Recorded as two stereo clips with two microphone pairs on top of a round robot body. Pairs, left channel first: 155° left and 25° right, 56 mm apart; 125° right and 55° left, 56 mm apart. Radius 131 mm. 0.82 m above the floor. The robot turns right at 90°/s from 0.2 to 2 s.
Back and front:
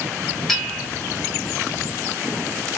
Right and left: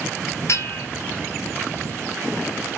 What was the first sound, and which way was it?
A bell, 120° right.